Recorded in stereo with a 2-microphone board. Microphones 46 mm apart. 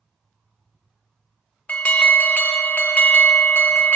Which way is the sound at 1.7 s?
30° left (ahead or behind).